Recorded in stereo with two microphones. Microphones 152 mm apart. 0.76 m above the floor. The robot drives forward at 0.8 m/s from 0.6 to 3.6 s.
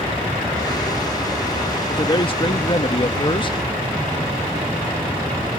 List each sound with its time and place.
1.9 s a man speaking: 30° left (ahead or behind)